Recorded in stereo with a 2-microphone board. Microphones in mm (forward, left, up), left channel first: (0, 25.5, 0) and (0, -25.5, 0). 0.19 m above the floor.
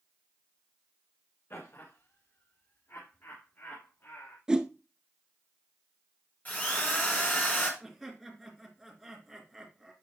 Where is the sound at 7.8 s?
Centre (ahead or behind), 3 m.